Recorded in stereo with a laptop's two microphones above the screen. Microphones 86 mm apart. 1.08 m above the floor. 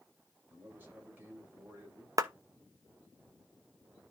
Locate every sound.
0.5 s a man speaking: 20° right (ahead or behind), 5.5 m
2.2 s a clap: 45° right (ahead or behind), 0.9 m